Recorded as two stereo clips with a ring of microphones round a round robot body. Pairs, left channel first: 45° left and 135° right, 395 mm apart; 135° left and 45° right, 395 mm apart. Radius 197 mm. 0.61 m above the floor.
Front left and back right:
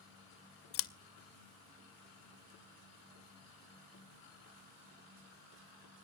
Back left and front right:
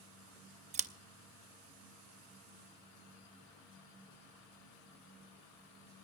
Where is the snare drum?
I don't hear a snare drum.